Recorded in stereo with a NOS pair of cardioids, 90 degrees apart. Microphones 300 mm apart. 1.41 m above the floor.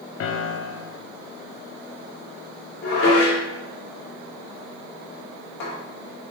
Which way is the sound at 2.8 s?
50° left.